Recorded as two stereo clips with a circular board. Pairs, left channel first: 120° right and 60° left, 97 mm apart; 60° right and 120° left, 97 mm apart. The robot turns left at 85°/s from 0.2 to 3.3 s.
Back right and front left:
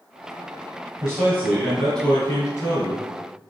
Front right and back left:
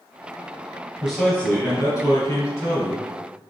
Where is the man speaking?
35° left, 1.5 m; by 3.1 s 140° right, 1.5 m.